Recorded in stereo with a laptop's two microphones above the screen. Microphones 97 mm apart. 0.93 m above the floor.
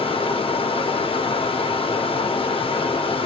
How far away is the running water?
About 1.1 m.